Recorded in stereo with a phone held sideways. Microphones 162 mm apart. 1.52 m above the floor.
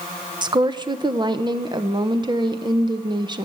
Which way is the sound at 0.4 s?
30° right (ahead or behind).